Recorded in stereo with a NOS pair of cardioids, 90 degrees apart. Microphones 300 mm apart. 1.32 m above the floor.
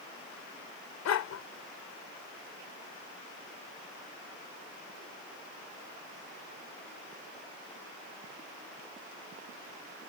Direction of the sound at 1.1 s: 65° left.